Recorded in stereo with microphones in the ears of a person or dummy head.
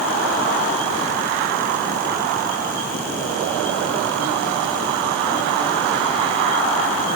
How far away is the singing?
No singing in this recording.